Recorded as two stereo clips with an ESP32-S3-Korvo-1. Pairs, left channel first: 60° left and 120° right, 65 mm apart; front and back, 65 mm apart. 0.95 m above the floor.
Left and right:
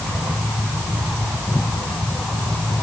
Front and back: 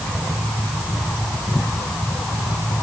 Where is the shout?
I don't hear a shout.